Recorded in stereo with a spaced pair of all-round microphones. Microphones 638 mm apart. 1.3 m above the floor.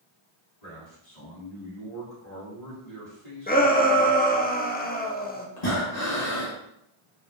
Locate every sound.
0.6 s a man speaking: 85° left, 2.5 m
3.5 s a shout: 15° left (ahead or behind), 0.5 m
5.6 s breathing: 85° left, 1.6 m